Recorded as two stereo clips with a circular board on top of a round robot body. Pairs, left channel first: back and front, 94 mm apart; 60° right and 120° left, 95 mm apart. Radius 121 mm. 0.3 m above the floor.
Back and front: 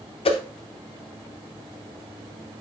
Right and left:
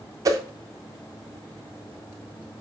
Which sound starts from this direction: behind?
A whoosh, at 0.2 s.